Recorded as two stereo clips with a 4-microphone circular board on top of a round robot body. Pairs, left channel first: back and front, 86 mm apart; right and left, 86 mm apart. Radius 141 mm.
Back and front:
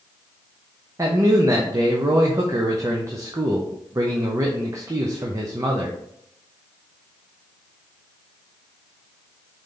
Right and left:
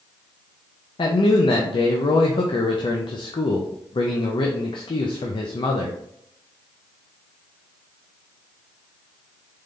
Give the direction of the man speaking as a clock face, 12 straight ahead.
2 o'clock.